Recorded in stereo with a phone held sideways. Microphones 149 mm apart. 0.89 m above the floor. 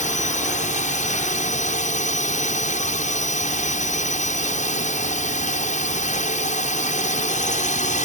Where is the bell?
I don't hear a bell.